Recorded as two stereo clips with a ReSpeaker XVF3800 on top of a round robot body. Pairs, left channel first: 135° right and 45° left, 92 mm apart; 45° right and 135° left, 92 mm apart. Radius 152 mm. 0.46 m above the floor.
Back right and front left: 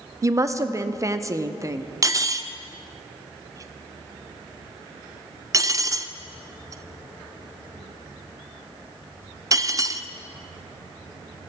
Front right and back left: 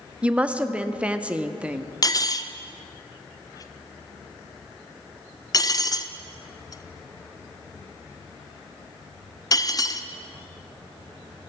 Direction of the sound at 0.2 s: 65° left.